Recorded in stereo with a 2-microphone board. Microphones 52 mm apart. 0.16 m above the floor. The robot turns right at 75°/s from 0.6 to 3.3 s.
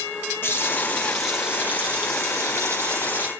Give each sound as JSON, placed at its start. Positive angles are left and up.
{"t": 0.4, "sound": "a running tap", "azimuth_deg": 130, "distance_m": 3.0}